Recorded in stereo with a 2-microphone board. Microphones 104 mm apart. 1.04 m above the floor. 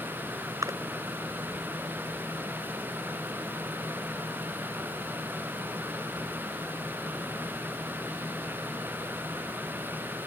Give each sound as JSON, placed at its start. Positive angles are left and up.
{"t": 0.6, "sound": "a splash", "side_deg": -35}